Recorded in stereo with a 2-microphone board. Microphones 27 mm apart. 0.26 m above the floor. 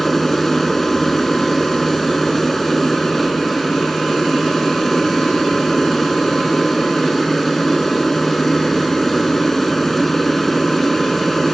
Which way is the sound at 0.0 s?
10° left (ahead or behind).